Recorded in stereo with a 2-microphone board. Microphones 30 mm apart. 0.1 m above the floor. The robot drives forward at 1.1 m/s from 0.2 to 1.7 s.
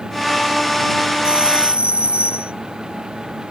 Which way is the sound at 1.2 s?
35° right (ahead or behind).